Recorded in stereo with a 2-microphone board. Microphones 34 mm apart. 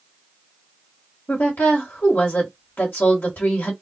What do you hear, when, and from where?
1.3 s a woman speaking: 85° left, 1.7 m